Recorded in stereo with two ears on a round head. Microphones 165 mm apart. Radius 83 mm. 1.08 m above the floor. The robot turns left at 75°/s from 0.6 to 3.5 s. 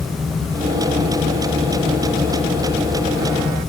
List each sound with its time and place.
Only background noise.